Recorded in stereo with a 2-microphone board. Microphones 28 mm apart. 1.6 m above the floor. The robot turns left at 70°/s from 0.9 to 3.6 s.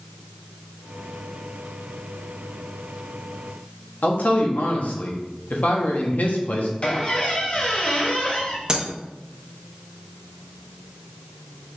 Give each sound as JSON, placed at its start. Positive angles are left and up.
{"t": 4.0, "sound": "a man speaking", "side_deg": 65, "distance_m": 0.9}
{"t": 6.8, "sound": "a squeak", "side_deg": 35, "distance_m": 1.1}
{"t": 8.7, "sound": "breaking glass", "side_deg": -25, "distance_m": 0.9}